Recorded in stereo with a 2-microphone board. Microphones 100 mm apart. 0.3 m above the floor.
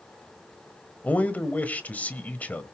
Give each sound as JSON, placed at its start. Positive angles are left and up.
{"t": 1.0, "sound": "a man speaking", "side_deg": 15, "distance_m": 1.2}